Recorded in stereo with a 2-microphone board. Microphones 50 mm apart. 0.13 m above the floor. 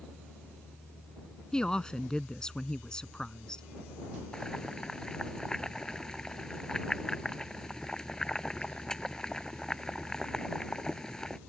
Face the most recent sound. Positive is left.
turn(degrees=15)  # may be behind; listen again after turning